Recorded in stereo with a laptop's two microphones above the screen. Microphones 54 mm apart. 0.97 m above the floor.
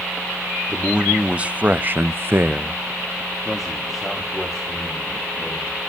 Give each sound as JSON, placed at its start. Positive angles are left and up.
{"t": 0.7, "sound": "a man speaking", "side_deg": -20, "distance_m": 2.0}